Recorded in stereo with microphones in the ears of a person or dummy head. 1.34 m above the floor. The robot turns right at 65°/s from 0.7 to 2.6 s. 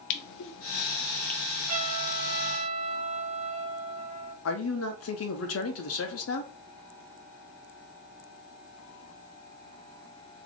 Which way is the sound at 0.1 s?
60° left (ahead or behind).